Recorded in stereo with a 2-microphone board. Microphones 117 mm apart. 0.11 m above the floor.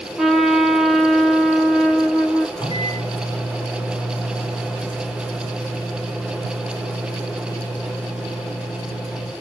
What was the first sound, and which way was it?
A trumpet, centre (ahead or behind).